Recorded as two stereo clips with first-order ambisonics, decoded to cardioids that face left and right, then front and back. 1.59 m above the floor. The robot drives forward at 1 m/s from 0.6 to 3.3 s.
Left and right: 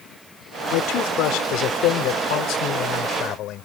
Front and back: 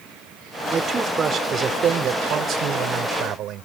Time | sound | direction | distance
0.7 | a man speaking | 110° left | ?